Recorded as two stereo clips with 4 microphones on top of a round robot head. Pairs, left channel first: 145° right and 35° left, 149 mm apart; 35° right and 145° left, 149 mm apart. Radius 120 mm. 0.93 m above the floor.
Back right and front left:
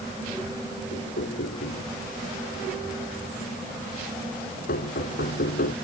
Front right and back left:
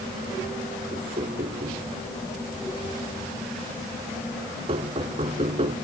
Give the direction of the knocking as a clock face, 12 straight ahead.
5 o'clock.